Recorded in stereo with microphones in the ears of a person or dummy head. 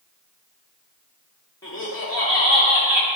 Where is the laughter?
25° left (ahead or behind), 3 m.